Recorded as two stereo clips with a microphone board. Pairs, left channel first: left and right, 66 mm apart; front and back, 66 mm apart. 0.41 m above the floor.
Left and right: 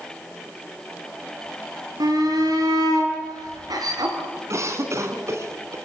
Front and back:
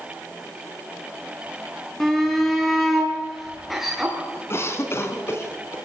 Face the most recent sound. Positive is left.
turn(degrees=-50)